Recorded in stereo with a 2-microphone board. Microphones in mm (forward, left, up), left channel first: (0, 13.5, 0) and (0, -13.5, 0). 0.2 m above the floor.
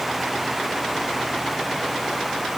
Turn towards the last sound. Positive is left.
No sound to turn to.